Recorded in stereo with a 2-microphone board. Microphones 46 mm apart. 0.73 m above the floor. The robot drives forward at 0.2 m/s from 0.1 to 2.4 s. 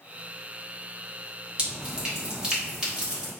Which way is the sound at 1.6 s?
25° right (ahead or behind).